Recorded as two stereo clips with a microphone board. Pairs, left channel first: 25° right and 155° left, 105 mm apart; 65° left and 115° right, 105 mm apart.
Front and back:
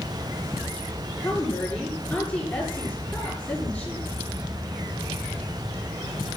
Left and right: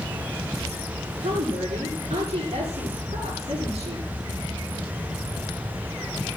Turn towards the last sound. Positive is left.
turn(degrees=-100)